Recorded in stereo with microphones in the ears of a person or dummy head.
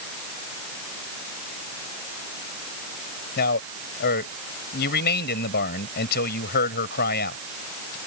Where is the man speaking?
55° left (ahead or behind).